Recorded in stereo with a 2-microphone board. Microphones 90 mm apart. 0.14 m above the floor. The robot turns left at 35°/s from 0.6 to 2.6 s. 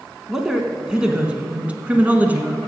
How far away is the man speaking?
About 1.1 m.